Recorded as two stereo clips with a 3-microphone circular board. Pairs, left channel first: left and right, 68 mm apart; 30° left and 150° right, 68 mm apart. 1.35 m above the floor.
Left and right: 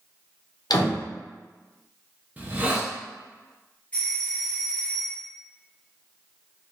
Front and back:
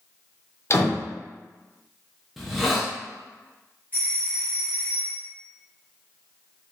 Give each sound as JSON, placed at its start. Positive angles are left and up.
{"t": 0.7, "sound": "a door slam", "azimuth_deg": 75, "distance_m": 0.6}
{"t": 2.4, "sound": "a hiss", "azimuth_deg": -65, "distance_m": 0.6}
{"t": 3.9, "sound": "a doorbell", "azimuth_deg": 155, "distance_m": 1.2}